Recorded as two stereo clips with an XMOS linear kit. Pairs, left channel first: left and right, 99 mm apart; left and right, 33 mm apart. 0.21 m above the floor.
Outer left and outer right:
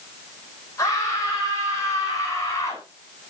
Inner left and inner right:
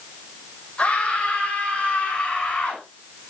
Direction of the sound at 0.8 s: 35° left (ahead or behind).